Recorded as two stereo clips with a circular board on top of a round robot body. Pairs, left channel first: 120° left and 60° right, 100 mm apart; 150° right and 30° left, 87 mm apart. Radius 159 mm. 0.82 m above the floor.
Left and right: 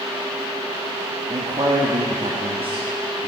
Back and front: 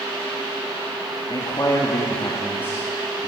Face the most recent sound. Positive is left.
turn(degrees=-70)